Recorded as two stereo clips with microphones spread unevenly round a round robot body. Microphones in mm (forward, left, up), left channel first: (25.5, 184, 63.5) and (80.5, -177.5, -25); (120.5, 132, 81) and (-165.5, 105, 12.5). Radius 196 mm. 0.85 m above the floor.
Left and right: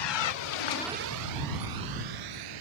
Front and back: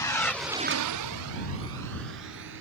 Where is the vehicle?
85° left; by 2.6 s 115° right.